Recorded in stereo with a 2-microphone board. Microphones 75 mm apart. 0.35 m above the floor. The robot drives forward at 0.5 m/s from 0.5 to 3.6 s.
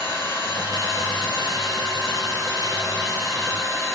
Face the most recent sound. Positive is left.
turn(degrees=55)  # may be behind; listen again after turning